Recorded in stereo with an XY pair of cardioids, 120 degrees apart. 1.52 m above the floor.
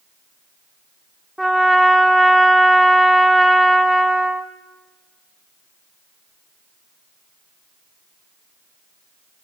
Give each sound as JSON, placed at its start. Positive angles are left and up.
{"t": 1.4, "sound": "a trumpet", "azimuth_deg": -5, "distance_m": 0.8}